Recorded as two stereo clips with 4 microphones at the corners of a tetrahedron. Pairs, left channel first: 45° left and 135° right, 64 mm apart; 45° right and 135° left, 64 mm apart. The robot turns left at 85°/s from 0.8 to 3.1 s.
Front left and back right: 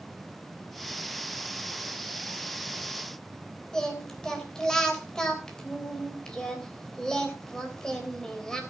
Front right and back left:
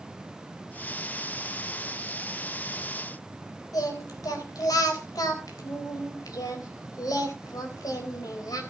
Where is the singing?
35° right, 3.5 m.